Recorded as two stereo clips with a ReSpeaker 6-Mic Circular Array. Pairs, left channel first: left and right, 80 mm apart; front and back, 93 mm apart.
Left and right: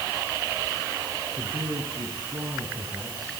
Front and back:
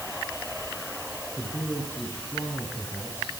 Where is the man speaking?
70° right, 8 m; by 3.4 s 60° right, 9 m.